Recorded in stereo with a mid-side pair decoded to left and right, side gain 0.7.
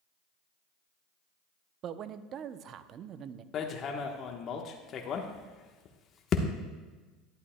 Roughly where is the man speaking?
Ahead right.